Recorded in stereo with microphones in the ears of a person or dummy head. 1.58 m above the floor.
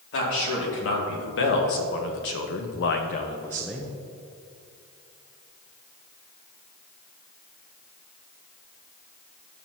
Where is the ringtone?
No ringtone in this recording.